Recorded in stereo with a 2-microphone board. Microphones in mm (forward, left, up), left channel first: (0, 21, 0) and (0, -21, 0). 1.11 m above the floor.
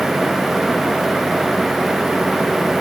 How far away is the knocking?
No knocking in this recording.